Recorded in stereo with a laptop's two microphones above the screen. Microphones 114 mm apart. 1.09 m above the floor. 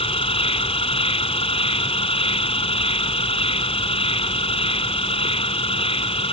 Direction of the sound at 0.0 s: 55° left (ahead or behind).